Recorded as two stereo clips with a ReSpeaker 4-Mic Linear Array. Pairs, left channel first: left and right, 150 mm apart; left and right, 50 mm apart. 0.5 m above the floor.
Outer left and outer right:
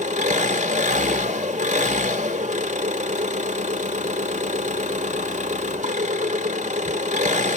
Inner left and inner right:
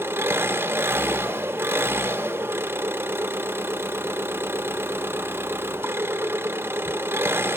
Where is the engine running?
50° right (ahead or behind), 0.7 m.